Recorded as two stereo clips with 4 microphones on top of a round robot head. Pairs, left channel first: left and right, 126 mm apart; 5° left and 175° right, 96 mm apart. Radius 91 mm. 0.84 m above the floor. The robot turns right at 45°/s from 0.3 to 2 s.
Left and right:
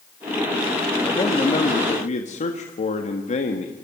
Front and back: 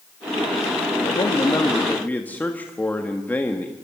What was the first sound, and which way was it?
A man speaking, 35° left.